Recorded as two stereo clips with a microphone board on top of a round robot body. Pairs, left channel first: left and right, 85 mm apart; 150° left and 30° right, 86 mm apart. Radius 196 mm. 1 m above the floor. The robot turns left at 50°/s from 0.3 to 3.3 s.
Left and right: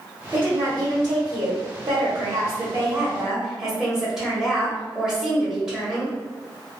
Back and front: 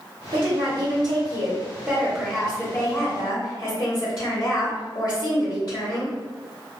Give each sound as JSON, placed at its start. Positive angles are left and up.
{"t": 0.3, "sound": "a woman speaking", "azimuth_deg": -20, "distance_m": 1.1}